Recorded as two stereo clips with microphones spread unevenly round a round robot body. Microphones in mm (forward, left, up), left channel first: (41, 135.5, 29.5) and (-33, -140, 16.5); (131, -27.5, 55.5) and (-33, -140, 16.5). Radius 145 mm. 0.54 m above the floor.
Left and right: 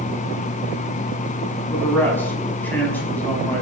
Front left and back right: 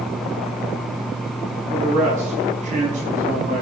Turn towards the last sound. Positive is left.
turn(degrees=160)